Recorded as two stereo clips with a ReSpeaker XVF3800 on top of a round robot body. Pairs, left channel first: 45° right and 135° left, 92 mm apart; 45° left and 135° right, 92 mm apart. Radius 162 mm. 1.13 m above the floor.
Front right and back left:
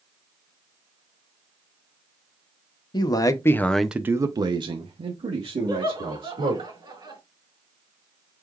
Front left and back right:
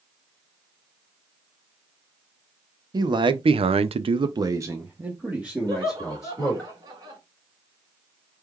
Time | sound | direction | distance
2.9 | a man speaking | 90° right | 0.8 m
5.7 | laughter | 175° left | 3.5 m